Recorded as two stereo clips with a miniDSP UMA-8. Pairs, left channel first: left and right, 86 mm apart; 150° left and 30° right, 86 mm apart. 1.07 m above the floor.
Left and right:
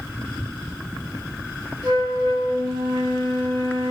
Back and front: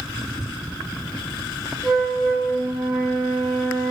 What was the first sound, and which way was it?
A flute, 130° right.